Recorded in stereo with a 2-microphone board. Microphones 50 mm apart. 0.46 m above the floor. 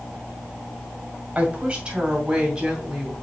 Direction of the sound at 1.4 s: 25° right (ahead or behind).